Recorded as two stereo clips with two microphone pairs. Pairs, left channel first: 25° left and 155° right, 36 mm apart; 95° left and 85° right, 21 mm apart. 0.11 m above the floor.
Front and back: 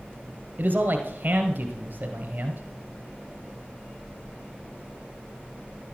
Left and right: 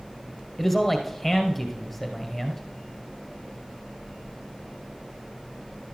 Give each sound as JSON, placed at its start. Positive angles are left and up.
{"t": 0.6, "sound": "a man speaking", "azimuth_deg": 180, "distance_m": 1.9}